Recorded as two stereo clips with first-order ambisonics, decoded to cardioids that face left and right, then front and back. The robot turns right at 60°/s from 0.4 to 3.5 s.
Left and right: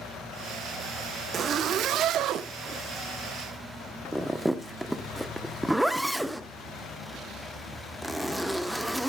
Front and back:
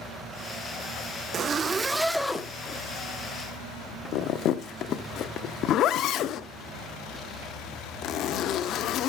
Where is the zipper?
135° right, 0.6 m; by 9.1 s 5° right, 0.6 m.